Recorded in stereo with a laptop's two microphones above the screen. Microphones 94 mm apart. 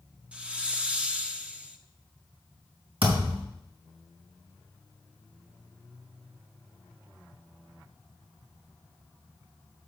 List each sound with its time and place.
0.3 s a hiss: 10° right (ahead or behind), 0.9 m
3.0 s a thud: 75° right (ahead or behind), 4 m